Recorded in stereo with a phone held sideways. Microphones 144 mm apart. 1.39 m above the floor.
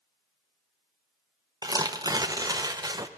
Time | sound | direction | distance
1.6 | tearing paper | 25° right (ahead or behind) | 0.6 m